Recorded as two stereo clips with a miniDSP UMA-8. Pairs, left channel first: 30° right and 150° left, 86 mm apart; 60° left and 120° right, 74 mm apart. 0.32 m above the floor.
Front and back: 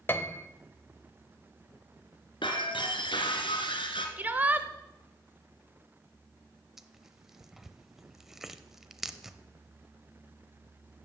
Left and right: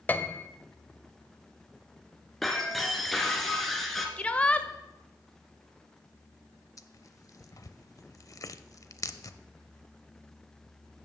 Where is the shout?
110° left, 0.9 m.